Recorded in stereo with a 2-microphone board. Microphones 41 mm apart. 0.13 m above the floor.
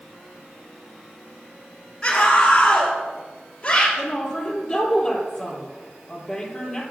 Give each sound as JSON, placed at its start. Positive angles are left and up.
{"t": 2.0, "sound": "a scream", "side_deg": 15, "distance_m": 2.0}
{"t": 4.0, "sound": "a woman speaking", "side_deg": 10, "distance_m": 3.5}